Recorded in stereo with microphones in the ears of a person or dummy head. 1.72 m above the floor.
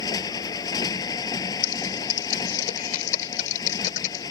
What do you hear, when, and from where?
0.0 s a motorcycle: 20° left (ahead or behind)
1.6 s typing on a keyboard: 45° left (ahead or behind)